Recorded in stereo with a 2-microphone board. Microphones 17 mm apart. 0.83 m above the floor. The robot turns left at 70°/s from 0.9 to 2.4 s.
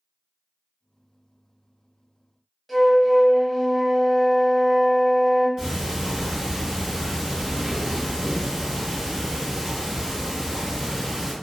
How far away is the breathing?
I don't hear breathing.